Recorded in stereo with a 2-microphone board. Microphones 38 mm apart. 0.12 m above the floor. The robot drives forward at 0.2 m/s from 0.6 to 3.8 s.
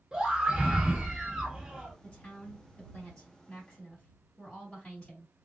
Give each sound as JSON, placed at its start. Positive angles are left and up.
{"t": 0.1, "sound": "a scream", "side_deg": -20, "distance_m": 1.2}
{"t": 2.0, "sound": "a woman speaking", "side_deg": 25, "distance_m": 2.5}